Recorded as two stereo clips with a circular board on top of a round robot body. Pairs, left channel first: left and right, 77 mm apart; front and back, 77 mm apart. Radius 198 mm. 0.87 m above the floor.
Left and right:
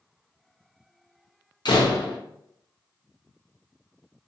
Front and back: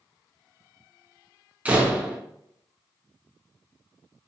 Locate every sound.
1.6 s a door slam: 110° left, 0.7 m